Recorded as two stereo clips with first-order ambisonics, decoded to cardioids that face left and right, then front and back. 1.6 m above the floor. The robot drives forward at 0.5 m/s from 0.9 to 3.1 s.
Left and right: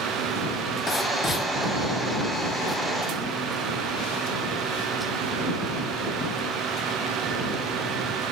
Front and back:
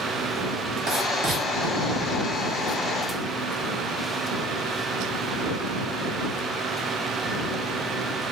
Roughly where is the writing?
Behind left.